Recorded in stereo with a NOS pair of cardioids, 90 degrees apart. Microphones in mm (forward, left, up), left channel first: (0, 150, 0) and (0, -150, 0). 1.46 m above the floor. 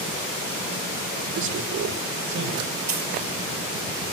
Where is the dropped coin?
65° right, 6 m.